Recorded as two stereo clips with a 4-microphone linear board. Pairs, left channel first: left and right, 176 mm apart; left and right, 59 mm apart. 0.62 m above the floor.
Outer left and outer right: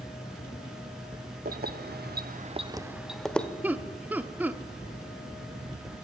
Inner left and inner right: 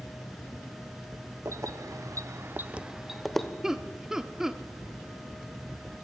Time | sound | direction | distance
1.4 | keys jangling | 65° right (ahead or behind) | 1.3 m
3.6 | laughter | 10° right (ahead or behind) | 1.1 m